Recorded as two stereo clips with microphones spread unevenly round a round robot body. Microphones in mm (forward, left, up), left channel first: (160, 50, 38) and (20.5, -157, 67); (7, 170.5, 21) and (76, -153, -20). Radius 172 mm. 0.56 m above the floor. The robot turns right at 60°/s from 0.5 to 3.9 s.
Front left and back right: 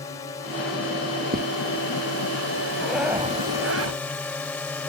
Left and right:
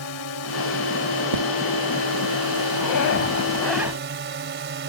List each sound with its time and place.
0.0 s a drone: 130° left; by 4.9 s 25° right
1.3 s footsteps: 75° right; by 1.4 s 65° right
2.8 s a zipper: 135° left; by 4.0 s 160° right